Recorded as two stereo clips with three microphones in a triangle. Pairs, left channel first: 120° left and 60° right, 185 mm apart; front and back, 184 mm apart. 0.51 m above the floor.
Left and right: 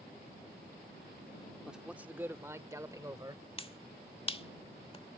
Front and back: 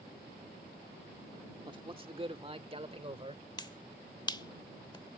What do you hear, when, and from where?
1.7 s a man speaking: 145° right; by 3.4 s 125° right
3.6 s a finger snap: 65° left